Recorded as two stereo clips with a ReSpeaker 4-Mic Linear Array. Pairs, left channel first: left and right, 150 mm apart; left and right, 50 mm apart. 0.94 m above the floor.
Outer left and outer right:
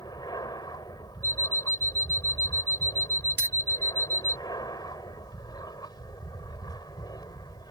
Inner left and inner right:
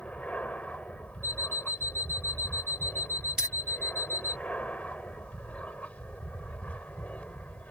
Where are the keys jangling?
10° right (ahead or behind).